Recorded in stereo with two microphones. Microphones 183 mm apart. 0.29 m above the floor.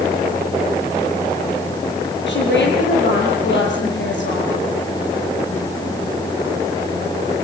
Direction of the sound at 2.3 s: 80° left.